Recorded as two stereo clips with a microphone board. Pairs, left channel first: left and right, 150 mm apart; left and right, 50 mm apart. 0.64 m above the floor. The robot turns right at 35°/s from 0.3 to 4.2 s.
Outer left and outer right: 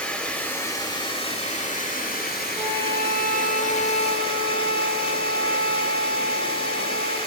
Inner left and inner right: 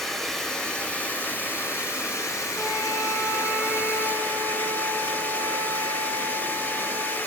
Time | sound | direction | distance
0.0 | running water | 10° left | 1.2 m
2.6 | a flute | 165° right | 1.2 m